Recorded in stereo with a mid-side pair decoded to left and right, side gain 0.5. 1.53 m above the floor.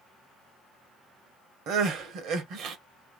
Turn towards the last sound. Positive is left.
turn(degrees=-70)